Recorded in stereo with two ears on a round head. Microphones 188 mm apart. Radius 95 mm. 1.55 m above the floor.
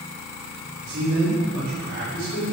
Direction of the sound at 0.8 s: 90° right.